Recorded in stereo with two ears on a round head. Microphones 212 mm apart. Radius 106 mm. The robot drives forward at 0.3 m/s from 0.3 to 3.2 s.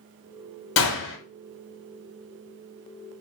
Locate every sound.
0.8 s a gunshot: 55° left (ahead or behind), 1.4 m